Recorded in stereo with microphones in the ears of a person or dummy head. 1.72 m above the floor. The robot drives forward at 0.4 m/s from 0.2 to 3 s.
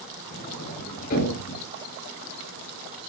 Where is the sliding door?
45° left (ahead or behind), 10 m.